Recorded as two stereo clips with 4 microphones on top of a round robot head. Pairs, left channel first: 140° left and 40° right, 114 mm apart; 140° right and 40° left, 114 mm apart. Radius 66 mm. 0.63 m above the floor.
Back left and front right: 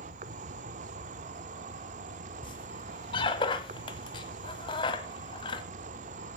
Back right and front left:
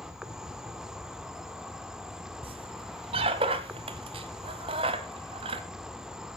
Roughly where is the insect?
Ahead right.